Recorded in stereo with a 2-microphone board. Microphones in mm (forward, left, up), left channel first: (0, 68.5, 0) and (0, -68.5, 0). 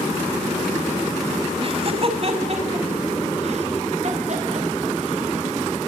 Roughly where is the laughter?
Right.